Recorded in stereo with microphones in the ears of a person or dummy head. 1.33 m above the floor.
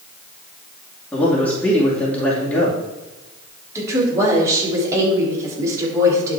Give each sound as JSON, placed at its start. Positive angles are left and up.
{"t": 1.1, "sound": "a man speaking", "side_deg": 10, "distance_m": 2.5}
{"t": 3.8, "sound": "a woman speaking", "side_deg": -10, "distance_m": 3.5}